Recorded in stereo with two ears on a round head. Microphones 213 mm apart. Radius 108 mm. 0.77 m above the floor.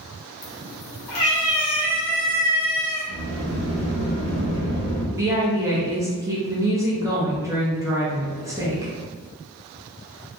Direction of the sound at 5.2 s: 15° right (ahead or behind).